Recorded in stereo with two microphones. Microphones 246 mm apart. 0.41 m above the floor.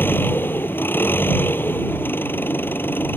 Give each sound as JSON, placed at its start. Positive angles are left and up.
{"t": 0.0, "sound": "an engine running", "side_deg": 10}